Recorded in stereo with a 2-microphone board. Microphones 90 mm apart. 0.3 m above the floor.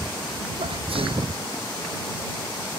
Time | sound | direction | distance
0.6 | a sneeze | 80° right | ?